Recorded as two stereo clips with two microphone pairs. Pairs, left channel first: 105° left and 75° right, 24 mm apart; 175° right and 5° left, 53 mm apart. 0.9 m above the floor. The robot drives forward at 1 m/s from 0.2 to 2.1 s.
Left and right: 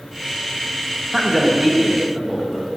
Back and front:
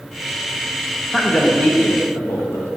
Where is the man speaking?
115° right, 0.9 m; by 2.7 s 165° right, 1.4 m.